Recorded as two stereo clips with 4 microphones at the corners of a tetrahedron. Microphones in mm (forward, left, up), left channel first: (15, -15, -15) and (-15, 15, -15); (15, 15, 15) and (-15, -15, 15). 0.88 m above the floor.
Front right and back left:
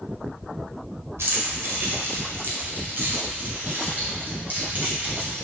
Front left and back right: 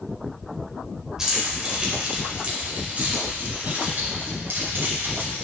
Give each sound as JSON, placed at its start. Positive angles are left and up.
{"t": 1.2, "sound": "keys jangling", "azimuth_deg": 150, "distance_m": 2.5}